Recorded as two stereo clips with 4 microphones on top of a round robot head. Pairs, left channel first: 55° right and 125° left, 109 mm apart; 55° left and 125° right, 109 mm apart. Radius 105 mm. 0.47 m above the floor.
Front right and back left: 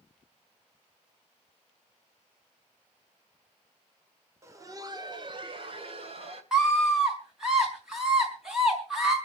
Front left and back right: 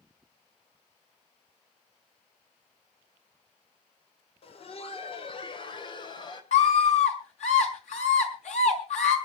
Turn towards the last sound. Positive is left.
turn(degrees=40)